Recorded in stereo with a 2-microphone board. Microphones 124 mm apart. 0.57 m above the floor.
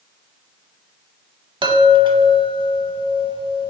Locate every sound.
1.6 s a chime: 40° right (ahead or behind), 0.5 m